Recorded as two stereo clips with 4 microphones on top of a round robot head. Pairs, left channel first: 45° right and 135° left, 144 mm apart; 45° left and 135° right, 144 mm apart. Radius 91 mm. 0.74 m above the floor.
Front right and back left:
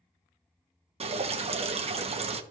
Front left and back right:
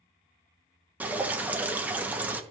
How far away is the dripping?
About 1.1 m.